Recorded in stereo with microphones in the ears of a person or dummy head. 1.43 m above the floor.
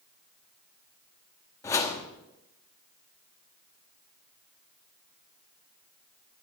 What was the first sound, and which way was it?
A whoosh, 15° left (ahead or behind).